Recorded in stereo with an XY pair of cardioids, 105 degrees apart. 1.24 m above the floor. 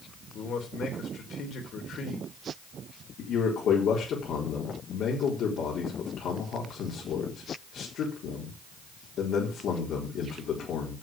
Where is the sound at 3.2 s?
70° left, 4 m.